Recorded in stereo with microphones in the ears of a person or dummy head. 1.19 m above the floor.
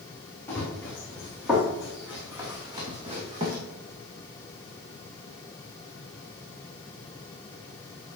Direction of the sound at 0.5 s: 15° left (ahead or behind).